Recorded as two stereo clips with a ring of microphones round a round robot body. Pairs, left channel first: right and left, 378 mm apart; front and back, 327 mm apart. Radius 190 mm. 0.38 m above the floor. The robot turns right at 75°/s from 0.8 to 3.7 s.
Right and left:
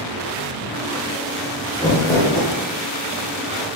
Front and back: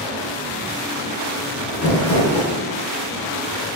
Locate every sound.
1.7 s crumpling: 5° right, 1.3 m; by 2.5 s 50° left, 1.3 m